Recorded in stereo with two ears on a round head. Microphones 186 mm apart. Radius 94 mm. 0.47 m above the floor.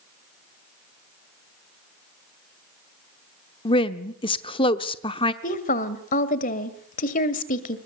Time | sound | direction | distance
3.6 | a woman speaking | 25° left (ahead or behind) | 0.9 m
5.4 | a woman speaking | 40° left (ahead or behind) | 1.9 m